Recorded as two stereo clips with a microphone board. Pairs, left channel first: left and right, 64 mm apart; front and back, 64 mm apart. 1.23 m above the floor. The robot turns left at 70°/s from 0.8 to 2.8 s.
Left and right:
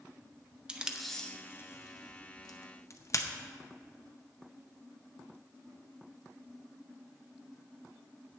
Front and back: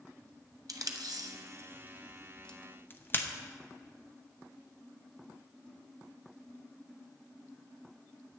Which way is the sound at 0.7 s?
165° right.